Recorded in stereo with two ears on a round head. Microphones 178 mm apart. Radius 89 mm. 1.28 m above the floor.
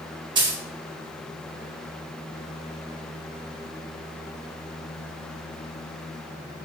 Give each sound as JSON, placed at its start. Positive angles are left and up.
{"t": 0.3, "sound": "a dropped coin", "side_deg": -25, "distance_m": 0.9}